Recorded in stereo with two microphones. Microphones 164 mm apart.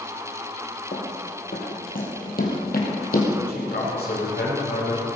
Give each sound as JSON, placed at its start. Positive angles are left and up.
{"t": 0.9, "sound": "running footsteps", "side_deg": 60, "distance_m": 3.0}
{"t": 3.5, "sound": "a man speaking", "side_deg": 90, "distance_m": 5.5}